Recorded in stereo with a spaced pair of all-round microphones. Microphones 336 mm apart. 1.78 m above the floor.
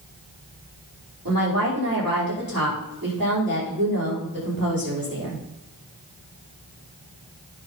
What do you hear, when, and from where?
1.2 s a woman speaking: 85° right, 5.5 m